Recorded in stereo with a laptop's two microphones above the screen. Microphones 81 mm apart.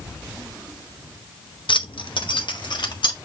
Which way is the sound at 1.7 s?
80° left.